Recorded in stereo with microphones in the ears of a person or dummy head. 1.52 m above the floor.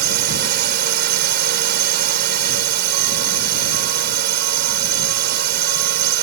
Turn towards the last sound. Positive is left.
turn(degrees=-55)  # may be behind; listen again after turning